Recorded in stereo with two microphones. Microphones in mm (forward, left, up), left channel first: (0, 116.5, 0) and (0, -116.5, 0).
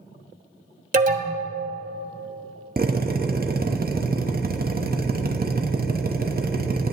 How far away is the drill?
About 0.7 m.